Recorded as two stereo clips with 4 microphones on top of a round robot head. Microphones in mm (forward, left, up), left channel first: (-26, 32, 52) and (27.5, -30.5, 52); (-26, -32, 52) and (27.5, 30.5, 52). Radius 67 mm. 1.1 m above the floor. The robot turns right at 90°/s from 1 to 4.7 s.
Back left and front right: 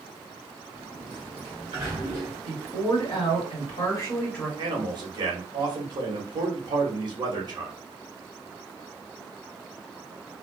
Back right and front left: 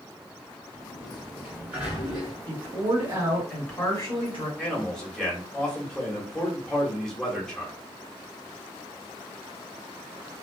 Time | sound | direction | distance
0.7 | a sliding door | 90° right | 1.6 m
2.5 | a woman speaking | 35° left | 1.8 m
4.6 | a man speaking | 60° right | 1.3 m